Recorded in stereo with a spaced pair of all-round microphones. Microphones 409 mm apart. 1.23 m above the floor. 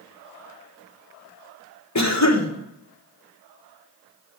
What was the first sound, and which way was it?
A cough, 40° left (ahead or behind).